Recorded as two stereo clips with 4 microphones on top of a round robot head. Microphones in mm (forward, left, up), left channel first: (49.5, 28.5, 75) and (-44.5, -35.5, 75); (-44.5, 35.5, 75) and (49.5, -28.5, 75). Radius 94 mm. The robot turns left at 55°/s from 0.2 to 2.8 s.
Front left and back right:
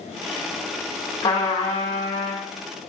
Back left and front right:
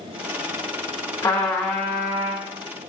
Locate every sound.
1.2 s a trumpet: 95° left, 1.9 m; by 2.5 s 25° left, 1.9 m